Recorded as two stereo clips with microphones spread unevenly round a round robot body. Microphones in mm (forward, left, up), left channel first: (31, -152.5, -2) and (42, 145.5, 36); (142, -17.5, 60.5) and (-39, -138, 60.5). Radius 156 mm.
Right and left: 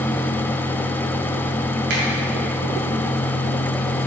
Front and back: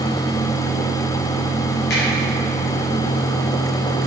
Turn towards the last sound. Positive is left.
turn(degrees=80)